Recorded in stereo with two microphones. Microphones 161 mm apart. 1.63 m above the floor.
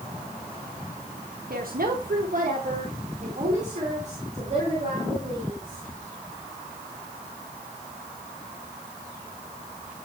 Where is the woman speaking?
70° right (ahead or behind), 1.6 m; by 5.9 s 40° right (ahead or behind), 4 m.